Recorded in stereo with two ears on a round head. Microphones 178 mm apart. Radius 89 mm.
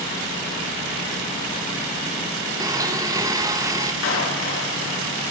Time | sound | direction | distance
2.6 | a blender | 15° right (ahead or behind) | 1.3 m
4.0 | a clap | 65° left (ahead or behind) | 6 m